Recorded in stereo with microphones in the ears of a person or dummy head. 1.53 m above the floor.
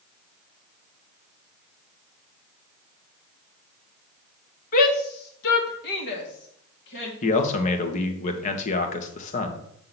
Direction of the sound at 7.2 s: 45° left (ahead or behind).